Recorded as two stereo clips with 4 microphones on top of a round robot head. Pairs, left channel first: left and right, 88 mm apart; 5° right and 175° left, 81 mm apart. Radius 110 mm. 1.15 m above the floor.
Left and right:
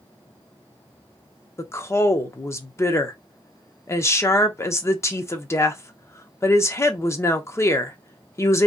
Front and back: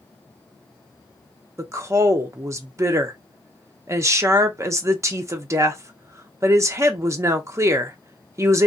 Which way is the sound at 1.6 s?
135° left.